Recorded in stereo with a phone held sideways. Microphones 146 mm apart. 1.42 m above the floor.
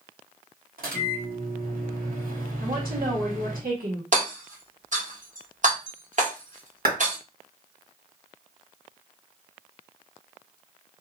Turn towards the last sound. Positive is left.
turn(degrees=-80)